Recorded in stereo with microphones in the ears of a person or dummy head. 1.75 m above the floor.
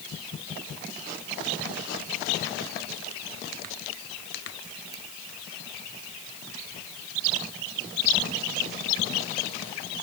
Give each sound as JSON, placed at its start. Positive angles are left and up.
{"t": 4.9, "sound": "a ringtone", "side_deg": -20}